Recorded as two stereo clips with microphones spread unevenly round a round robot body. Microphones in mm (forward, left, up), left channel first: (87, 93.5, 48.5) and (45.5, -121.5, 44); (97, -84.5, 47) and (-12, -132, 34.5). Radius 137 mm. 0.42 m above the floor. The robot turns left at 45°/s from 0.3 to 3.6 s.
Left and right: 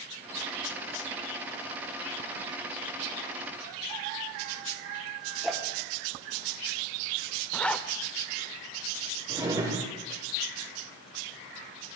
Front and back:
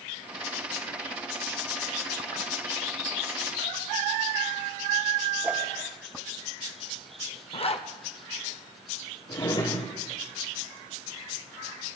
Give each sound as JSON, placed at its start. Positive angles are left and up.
{"t": 5.4, "sound": "a whoosh", "azimuth_deg": 175, "distance_m": 1.5}
{"t": 7.5, "sound": "a zipper", "azimuth_deg": -5, "distance_m": 1.1}
{"t": 9.3, "sound": "a drawer", "azimuth_deg": -30, "distance_m": 4.0}